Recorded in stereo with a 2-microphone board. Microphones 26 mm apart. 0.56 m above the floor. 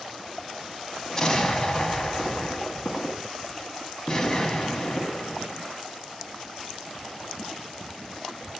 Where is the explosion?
25° left (ahead or behind), 0.8 m.